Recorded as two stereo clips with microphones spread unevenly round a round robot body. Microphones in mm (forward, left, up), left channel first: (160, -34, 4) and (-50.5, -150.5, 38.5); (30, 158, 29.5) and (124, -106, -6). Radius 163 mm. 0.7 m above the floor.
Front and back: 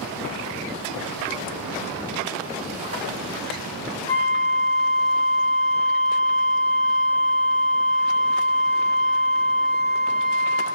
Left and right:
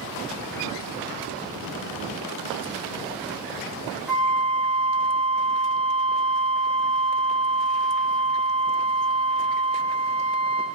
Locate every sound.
4.1 s a flute: 5° left, 1.1 m